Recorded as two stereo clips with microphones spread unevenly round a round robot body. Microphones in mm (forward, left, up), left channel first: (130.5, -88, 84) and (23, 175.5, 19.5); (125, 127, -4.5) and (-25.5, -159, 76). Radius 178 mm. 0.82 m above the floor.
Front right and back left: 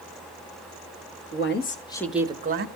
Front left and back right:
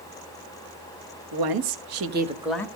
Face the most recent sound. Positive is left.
turn(degrees=130)